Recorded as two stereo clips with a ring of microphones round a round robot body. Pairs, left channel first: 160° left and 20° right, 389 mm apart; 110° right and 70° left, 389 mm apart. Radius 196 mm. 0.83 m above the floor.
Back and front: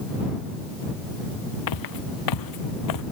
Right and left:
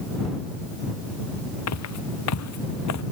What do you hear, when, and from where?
1.7 s footsteps: 165° right; by 3.0 s 160° right